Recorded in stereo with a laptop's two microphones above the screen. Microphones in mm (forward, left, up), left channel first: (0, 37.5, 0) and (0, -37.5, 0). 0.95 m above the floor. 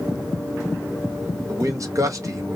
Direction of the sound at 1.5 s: 45° right (ahead or behind).